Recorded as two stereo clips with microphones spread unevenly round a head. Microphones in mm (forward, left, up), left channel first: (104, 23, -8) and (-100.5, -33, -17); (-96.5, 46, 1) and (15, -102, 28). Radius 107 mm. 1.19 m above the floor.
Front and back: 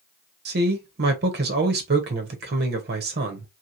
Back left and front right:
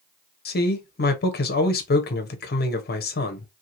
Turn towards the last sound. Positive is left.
turn(degrees=155)